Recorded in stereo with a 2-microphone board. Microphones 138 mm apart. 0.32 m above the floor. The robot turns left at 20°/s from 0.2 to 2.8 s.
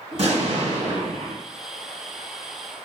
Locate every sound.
0.1 s an explosion: 50° right (ahead or behind), 1.6 m; by 1.4 s 60° right (ahead or behind), 1.6 m